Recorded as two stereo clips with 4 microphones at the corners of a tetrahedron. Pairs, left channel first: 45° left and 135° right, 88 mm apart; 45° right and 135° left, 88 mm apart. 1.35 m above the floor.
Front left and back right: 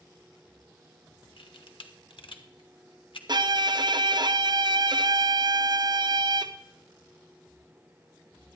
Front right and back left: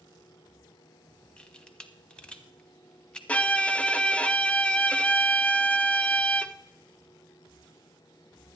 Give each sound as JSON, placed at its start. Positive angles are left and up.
{"t": 1.4, "sound": "a camera shutter", "azimuth_deg": 35, "distance_m": 0.8}
{"t": 3.3, "sound": "a violin", "azimuth_deg": -115, "distance_m": 0.5}